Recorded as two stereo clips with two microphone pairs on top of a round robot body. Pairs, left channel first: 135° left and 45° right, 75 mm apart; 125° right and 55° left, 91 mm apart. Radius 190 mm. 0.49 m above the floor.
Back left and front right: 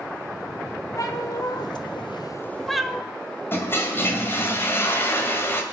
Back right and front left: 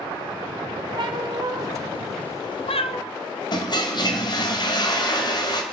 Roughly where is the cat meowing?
Left.